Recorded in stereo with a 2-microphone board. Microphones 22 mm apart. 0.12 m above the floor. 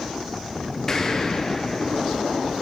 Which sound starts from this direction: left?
An explosion, at 0.9 s.